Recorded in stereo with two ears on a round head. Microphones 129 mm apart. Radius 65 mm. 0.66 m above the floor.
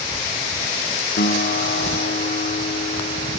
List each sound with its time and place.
1.2 s a guitar: 75° left (ahead or behind), 0.7 m